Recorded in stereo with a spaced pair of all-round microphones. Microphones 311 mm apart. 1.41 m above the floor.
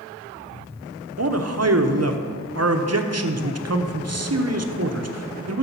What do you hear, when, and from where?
1.2 s a man speaking: 50° right (ahead or behind), 0.9 m